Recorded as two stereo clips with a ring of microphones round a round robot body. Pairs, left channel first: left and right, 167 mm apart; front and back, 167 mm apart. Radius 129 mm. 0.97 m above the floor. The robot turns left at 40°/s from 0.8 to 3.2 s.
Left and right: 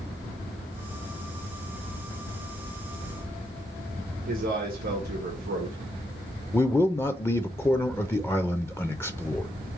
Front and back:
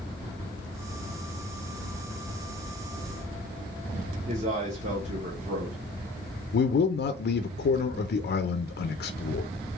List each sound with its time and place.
4.3 s a man speaking: 130° right, 0.9 m
6.5 s a man speaking: 15° left, 0.5 m